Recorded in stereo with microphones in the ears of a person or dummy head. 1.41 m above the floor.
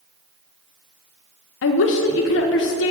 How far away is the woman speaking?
About 0.6 m.